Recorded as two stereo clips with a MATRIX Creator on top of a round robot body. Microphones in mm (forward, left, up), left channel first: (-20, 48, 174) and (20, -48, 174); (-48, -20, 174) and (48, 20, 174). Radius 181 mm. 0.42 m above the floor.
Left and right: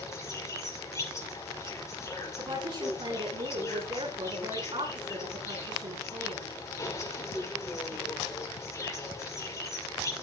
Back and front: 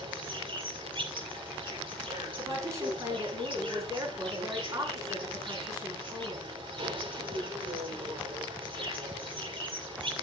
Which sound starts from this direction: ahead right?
A woman speaking, at 2.4 s.